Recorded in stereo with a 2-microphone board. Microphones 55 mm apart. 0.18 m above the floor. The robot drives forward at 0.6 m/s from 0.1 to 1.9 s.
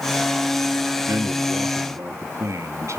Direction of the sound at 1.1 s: 65° right (ahead or behind).